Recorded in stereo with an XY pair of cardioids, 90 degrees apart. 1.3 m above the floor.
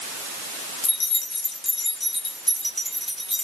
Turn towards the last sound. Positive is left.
turn(degrees=5)